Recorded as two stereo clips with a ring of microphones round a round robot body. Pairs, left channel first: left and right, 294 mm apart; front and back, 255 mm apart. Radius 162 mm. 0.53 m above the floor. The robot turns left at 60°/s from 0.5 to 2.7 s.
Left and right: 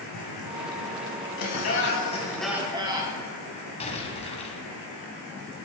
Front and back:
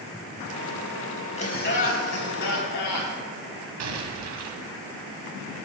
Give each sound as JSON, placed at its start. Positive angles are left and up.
{"t": 1.4, "sound": "laughter", "azimuth_deg": 65, "distance_m": 4.0}
{"t": 3.8, "sound": "an explosion", "azimuth_deg": 160, "distance_m": 1.9}